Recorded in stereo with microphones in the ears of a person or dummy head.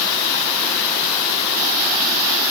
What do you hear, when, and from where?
Only background noise.